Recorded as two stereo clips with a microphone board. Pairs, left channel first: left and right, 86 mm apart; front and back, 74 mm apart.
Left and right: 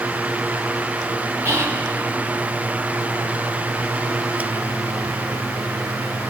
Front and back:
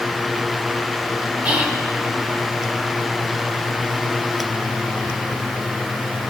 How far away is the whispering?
About 1.0 m.